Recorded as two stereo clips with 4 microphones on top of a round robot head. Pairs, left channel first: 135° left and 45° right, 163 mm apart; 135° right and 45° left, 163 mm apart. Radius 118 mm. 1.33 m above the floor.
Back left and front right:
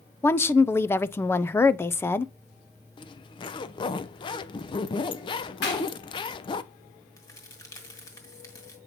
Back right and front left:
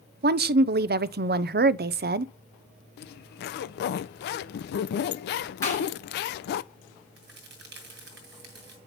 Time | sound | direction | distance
0.2 | a woman speaking | 60° left | 0.5 m
3.0 | a zipper | 160° right | 0.5 m
5.6 | a clap | 150° left | 7 m
7.2 | a crack | 65° left | 1.9 m